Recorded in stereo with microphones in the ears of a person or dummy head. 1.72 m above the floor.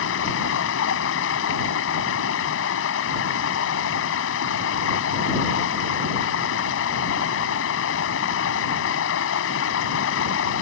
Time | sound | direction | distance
0.0 | running water | 70° left (ahead or behind) | ?